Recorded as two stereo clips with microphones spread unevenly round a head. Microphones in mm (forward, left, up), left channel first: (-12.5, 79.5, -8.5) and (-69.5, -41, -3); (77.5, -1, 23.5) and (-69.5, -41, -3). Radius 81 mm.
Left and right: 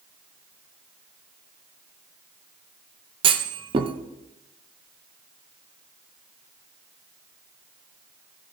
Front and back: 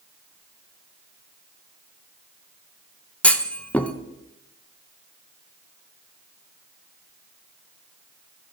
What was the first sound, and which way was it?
A clunk, 75° right.